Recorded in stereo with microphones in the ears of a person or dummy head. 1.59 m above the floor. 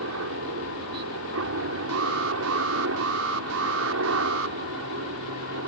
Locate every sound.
0.0 s a helicopter: 75° right (ahead or behind)
1.9 s an alarm: 80° right